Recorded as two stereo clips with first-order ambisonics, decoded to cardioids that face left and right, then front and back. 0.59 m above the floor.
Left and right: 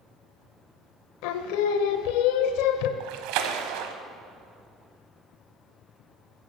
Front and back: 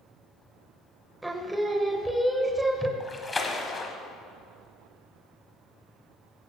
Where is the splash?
80° right, 1.0 m.